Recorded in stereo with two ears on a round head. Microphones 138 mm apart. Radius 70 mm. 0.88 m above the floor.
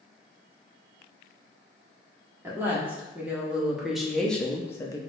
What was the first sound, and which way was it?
A woman speaking, 15° right (ahead or behind).